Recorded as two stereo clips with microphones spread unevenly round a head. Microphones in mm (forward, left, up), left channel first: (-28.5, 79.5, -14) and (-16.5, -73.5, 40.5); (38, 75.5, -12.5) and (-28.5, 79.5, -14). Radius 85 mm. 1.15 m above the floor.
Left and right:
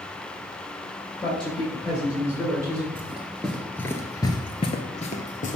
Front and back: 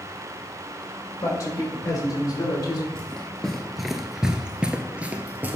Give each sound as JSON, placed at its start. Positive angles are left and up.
{"t": 1.2, "sound": "a man speaking", "azimuth_deg": 35, "distance_m": 4.0}
{"t": 3.0, "sound": "running footsteps", "azimuth_deg": -65, "distance_m": 1.2}